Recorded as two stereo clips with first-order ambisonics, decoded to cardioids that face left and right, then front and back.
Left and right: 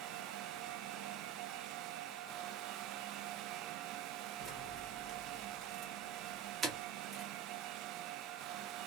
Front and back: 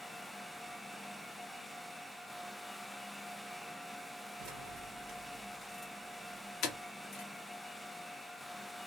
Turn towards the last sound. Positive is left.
turn(degrees=-10)